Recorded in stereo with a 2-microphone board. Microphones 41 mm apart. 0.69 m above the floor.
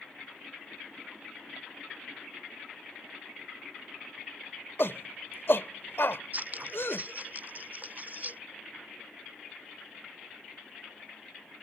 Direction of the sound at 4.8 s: 65° left (ahead or behind).